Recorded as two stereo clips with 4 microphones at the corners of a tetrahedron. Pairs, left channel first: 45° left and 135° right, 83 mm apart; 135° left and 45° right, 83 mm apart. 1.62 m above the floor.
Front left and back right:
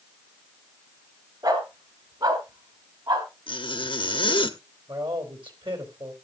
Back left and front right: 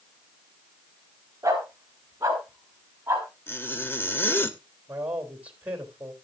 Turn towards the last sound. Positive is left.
turn(degrees=-120)